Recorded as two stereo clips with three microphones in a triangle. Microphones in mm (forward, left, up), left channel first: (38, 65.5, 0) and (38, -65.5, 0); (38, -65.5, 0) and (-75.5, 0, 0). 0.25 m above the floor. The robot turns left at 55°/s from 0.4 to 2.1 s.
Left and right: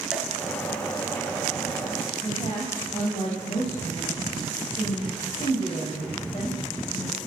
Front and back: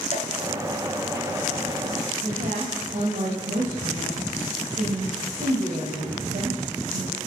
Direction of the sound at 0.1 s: 5° right.